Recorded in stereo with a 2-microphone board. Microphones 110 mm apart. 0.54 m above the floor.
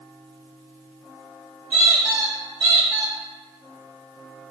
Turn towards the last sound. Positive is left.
turn(degrees=-30)  # may be behind; listen again after turning